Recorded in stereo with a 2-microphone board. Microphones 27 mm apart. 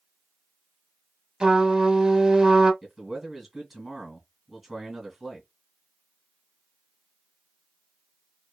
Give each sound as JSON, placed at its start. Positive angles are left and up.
{"t": 1.4, "sound": "a trumpet", "side_deg": -25, "distance_m": 1.2}
{"t": 2.8, "sound": "a man speaking", "side_deg": -5, "distance_m": 1.9}